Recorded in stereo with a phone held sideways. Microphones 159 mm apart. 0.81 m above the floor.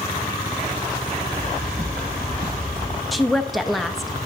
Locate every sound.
1.3 s footsteps: 65° right (ahead or behind), 4.5 m; by 3.0 s 55° right (ahead or behind), 2.5 m
3.1 s a woman speaking: centre (ahead or behind), 0.6 m